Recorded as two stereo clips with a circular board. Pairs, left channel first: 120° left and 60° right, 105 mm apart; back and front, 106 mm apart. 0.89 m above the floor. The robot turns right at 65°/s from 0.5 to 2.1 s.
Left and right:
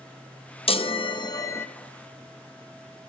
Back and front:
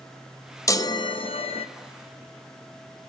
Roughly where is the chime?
Behind left.